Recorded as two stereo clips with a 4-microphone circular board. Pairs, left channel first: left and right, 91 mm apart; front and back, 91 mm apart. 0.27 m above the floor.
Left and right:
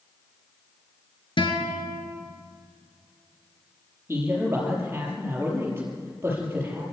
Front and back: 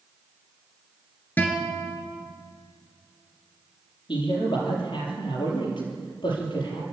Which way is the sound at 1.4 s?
70° left.